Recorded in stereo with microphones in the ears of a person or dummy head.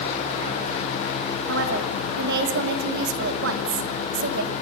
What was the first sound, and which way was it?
A woman speaking, 70° right (ahead or behind).